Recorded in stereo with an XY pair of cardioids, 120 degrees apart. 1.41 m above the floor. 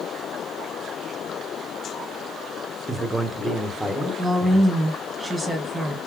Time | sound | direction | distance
2.9 | a man speaking | 10° right | 1.2 m
4.2 | a woman speaking | 10° right | 1.6 m